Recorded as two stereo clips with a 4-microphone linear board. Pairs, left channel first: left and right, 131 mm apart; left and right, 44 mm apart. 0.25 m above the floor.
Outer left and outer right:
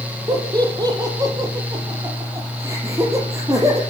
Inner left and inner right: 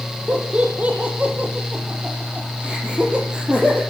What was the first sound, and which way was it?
Laughter, 30° right (ahead or behind).